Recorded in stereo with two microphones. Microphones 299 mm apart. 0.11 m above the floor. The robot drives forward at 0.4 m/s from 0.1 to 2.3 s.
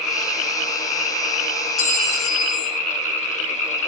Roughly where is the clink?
Left.